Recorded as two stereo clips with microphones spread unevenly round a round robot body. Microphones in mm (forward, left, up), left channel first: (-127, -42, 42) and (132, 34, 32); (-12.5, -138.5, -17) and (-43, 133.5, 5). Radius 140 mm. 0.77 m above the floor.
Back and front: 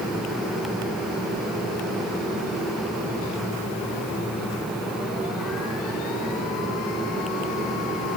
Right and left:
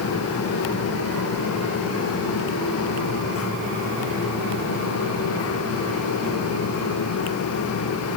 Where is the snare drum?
No snare drum in this recording.